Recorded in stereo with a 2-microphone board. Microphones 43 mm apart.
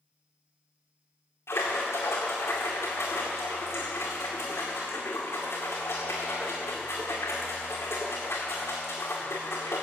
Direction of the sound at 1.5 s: 85° left.